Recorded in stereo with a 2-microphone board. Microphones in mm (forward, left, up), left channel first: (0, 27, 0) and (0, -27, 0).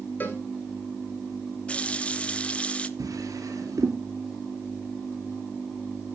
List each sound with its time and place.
0.2 s a cowbell: 35° left (ahead or behind), 2.5 m
1.7 s a running tap: 20° left (ahead or behind), 0.7 m
3.0 s a drawer: 80° right, 2.5 m